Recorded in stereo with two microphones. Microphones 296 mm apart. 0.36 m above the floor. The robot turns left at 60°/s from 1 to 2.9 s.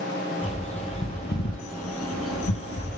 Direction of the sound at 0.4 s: 20° left (ahead or behind).